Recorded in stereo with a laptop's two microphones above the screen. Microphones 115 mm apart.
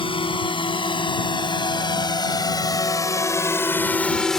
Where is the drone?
55° left (ahead or behind); by 4.4 s 5° left (ahead or behind).